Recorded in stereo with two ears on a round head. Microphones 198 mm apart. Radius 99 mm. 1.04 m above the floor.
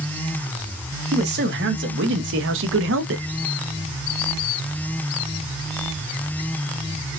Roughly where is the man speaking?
Right.